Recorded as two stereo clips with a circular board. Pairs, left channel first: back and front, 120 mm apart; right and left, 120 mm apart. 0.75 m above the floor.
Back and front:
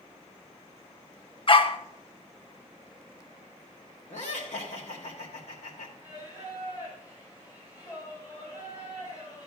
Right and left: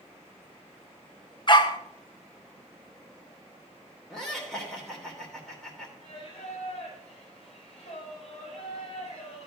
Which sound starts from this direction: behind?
Laughter, at 4.1 s.